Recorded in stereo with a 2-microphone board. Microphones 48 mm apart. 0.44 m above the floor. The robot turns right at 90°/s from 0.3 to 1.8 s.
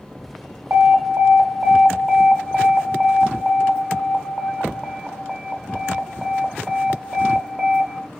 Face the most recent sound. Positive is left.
turn(degrees=-15)